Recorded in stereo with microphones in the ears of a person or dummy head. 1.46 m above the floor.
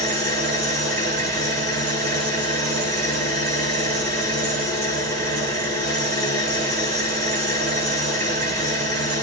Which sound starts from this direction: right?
An engine running, at 0.0 s.